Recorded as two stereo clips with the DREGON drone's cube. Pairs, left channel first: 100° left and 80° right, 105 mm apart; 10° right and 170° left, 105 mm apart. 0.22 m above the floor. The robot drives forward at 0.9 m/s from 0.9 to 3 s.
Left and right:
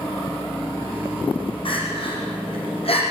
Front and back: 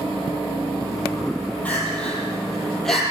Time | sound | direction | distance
1.6 | crying | 65° left | 7 m